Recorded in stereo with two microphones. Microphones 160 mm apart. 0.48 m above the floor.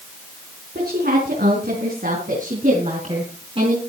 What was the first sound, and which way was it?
A woman speaking, 80° right.